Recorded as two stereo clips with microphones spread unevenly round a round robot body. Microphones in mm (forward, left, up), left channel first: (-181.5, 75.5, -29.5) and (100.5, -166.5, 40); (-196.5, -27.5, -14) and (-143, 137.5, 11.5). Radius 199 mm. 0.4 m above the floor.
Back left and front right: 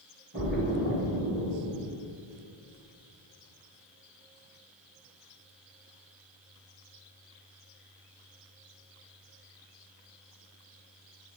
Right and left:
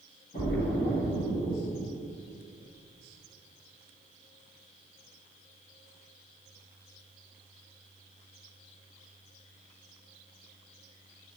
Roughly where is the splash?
Right.